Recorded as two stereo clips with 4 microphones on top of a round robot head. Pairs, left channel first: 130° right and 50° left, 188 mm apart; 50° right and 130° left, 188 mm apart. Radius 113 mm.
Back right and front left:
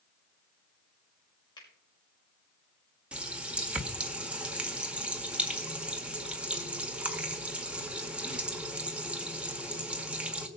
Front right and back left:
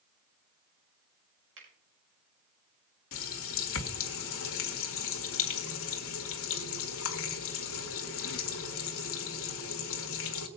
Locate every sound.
1.6 s a finger snap: 155° left, 6 m
3.1 s a running tap: 35° right, 1.7 m